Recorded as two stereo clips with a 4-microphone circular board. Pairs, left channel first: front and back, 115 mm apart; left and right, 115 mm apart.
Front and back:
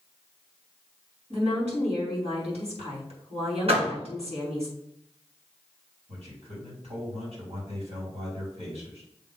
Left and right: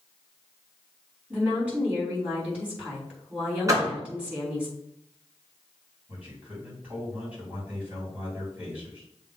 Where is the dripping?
No dripping in this recording.